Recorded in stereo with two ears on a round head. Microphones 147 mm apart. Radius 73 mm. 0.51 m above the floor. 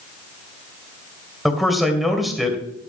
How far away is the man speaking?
About 2.5 m.